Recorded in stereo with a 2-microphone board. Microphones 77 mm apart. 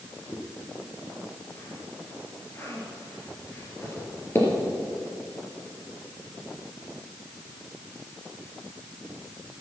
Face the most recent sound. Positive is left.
turn(degrees=35)  # may be behind; listen again after turning